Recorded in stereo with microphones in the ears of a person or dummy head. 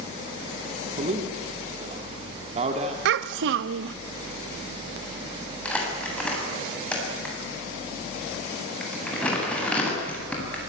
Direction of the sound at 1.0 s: 35° right (ahead or behind).